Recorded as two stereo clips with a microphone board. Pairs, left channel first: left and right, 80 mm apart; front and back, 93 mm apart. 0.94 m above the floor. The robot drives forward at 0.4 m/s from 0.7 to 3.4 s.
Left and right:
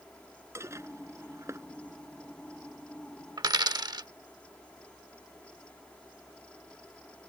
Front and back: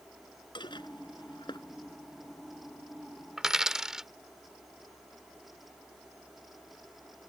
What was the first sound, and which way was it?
Dishes clattering, 35° right.